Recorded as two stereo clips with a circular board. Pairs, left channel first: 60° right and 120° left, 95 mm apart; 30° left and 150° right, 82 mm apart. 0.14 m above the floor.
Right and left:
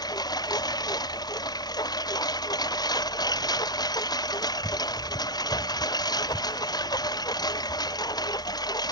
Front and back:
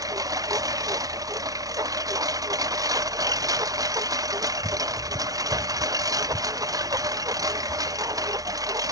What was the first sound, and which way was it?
A lawn mower, 105° right.